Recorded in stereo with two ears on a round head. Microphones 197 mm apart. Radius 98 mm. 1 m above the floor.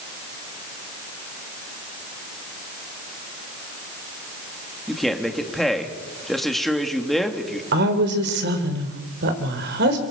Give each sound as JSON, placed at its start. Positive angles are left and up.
{"t": 4.9, "sound": "a man speaking", "side_deg": 0, "distance_m": 2.0}
{"t": 7.7, "sound": "a woman speaking", "side_deg": -50, "distance_m": 3.5}